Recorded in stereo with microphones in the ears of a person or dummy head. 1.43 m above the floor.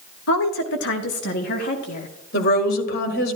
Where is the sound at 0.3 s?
75° left (ahead or behind), 0.7 m; by 2.1 s 40° left (ahead or behind), 1.5 m.